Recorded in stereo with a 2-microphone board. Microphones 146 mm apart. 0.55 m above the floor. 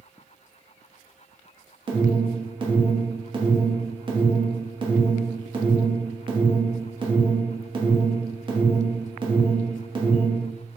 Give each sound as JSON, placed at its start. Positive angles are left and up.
{"t": 1.9, "sound": "an alarm", "side_deg": -35, "distance_m": 0.8}